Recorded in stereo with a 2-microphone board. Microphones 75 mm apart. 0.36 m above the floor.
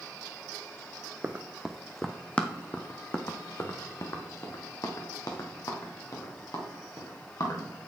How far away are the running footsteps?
About 0.7 m.